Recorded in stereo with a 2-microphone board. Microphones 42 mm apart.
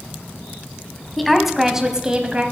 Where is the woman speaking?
Centre (ahead or behind), 1.1 m; by 2.4 s 30° right (ahead or behind), 1.0 m.